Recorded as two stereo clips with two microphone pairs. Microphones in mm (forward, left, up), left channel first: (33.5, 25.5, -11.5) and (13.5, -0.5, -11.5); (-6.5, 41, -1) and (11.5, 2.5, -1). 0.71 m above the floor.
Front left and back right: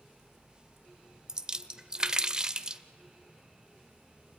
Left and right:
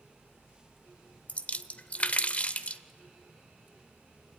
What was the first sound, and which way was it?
A splash, 165° left.